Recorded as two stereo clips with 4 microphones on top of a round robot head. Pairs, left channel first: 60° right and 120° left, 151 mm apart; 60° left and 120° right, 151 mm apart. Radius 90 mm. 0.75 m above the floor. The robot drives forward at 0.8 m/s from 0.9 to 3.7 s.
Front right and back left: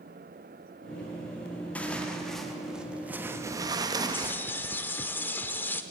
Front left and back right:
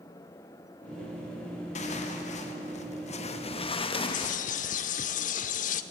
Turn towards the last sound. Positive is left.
turn(degrees=20)